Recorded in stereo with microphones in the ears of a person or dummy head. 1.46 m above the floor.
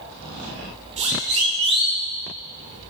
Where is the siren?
40° right (ahead or behind), 3.5 m; by 2.0 s 30° right (ahead or behind), 4 m.